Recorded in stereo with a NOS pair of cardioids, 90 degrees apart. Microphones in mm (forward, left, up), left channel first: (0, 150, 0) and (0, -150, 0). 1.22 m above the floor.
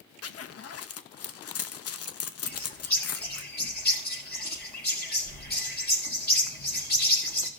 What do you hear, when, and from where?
0.2 s a zipper: 50° left, 0.9 m
2.4 s a bird: 30° left, 4.5 m